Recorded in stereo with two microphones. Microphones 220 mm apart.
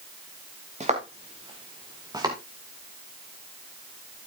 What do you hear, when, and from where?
0.8 s footsteps: 30° right (ahead or behind), 3 m; by 2.4 s 15° right (ahead or behind), 3.5 m